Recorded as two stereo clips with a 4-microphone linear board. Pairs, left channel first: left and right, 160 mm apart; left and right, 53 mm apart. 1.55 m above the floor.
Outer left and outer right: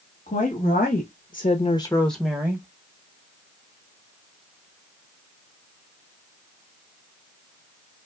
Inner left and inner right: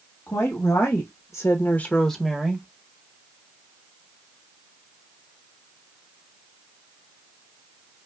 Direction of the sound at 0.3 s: 55° left (ahead or behind).